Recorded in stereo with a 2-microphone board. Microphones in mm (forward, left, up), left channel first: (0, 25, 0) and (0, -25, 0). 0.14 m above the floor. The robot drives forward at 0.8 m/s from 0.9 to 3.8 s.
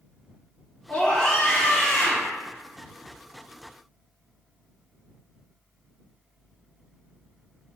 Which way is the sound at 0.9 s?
20° left (ahead or behind).